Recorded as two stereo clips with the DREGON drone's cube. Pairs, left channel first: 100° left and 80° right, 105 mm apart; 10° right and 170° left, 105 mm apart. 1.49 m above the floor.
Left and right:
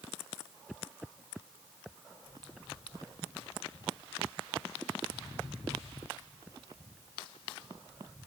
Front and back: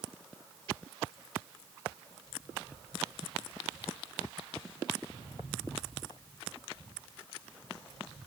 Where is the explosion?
I don't hear an explosion.